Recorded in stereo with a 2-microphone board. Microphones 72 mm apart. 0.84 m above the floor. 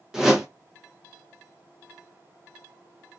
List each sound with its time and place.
0.1 s a whoosh: 5° right (ahead or behind), 0.8 m